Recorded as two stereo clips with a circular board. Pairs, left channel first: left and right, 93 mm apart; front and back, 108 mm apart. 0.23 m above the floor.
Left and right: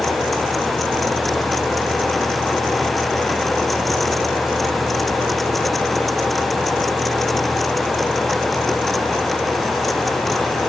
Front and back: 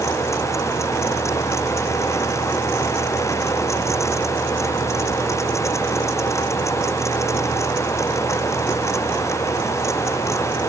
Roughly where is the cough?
I don't hear a cough.